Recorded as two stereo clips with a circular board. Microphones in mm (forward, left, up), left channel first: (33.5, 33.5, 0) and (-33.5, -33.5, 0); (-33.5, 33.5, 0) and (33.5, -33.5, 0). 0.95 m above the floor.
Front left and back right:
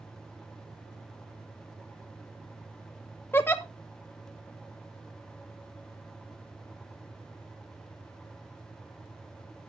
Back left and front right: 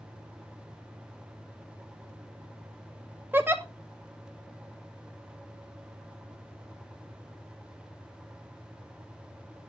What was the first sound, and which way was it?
A giggle, straight ahead.